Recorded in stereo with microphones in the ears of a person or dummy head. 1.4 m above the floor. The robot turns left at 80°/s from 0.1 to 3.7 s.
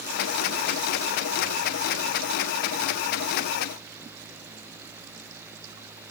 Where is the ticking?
No ticking in this recording.